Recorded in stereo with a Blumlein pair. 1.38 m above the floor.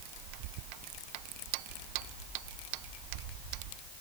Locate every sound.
Only background noise.